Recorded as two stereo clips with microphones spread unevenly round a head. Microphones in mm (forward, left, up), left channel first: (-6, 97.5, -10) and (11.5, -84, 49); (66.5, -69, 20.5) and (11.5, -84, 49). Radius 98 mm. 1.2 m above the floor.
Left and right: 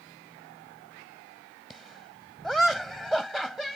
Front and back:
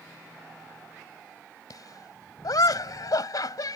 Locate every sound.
1.7 s laughter: 5° left